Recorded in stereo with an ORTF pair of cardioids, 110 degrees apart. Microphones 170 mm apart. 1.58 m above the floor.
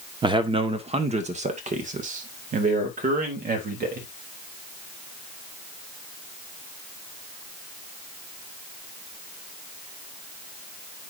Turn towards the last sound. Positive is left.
turn(degrees=-60)